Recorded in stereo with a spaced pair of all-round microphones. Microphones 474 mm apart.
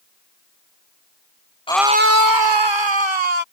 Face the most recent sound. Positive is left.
turn(degrees=-70)  # may be behind; listen again after turning